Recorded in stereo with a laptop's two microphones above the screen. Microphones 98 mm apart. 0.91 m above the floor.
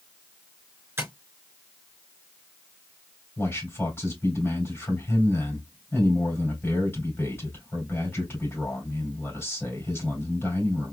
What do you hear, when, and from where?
1.0 s tapping: 30° right (ahead or behind), 3.5 m
3.4 s a man speaking: 25° left (ahead or behind), 4 m